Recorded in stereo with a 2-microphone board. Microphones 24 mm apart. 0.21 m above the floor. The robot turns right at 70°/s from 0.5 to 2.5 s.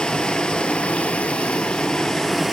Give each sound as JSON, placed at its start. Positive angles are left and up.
{"t": 0.0, "sound": "running water", "azimuth_deg": 40, "distance_m": 0.8}